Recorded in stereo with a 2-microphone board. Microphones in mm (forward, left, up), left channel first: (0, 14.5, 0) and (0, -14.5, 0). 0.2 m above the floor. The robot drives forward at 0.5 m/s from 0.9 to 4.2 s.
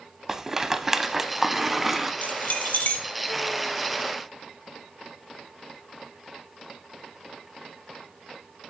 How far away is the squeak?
I don't hear a squeak.